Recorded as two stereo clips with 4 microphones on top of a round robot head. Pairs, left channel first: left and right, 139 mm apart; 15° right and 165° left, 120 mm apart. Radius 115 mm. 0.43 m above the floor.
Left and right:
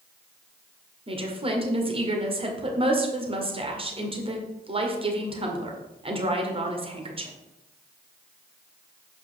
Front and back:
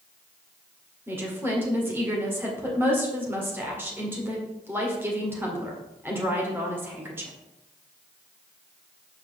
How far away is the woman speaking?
About 1.9 m.